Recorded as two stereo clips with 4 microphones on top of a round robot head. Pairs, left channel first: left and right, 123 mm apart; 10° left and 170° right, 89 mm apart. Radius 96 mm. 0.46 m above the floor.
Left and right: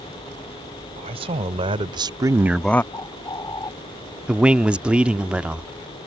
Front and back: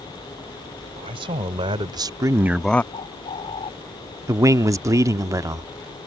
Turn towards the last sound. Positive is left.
turn(degrees=-165)